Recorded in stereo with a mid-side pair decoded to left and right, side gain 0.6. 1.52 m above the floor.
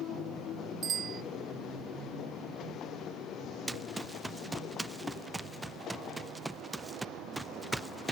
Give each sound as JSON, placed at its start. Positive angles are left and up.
{"t": 0.8, "sound": "a bicycle bell", "azimuth_deg": -40}
{"t": 3.7, "sound": "running footsteps", "azimuth_deg": -10}